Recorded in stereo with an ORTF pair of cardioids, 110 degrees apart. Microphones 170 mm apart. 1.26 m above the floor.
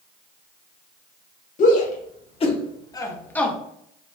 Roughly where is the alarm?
I don't hear an alarm.